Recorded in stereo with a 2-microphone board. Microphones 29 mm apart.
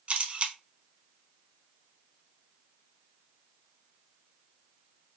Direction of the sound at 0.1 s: 45° right (ahead or behind).